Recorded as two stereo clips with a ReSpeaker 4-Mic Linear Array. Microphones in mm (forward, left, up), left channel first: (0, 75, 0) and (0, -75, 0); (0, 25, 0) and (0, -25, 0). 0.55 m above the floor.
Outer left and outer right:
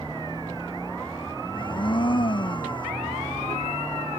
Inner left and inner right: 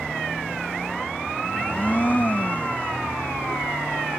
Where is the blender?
35° left (ahead or behind).